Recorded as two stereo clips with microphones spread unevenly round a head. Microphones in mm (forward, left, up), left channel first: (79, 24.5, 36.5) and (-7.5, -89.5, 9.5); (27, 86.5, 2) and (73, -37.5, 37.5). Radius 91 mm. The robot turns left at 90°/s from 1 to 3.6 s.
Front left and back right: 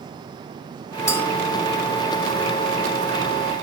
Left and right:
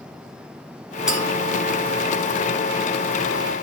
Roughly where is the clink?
Ahead.